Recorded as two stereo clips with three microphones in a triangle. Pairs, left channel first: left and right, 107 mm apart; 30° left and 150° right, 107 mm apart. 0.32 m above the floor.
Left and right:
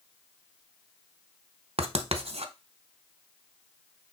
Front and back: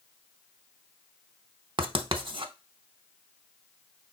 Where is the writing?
110° right, 0.7 m.